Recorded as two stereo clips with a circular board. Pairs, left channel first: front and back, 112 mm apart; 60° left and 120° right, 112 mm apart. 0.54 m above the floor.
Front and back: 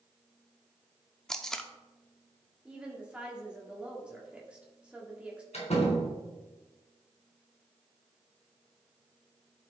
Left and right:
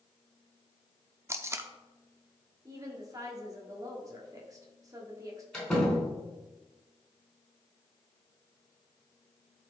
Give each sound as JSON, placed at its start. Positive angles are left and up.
{"t": 1.3, "sound": "tape being pulled", "azimuth_deg": -80, "distance_m": 0.7}
{"t": 2.6, "sound": "a woman speaking", "azimuth_deg": -110, "distance_m": 1.4}
{"t": 5.5, "sound": "a door slam", "azimuth_deg": -25, "distance_m": 4.0}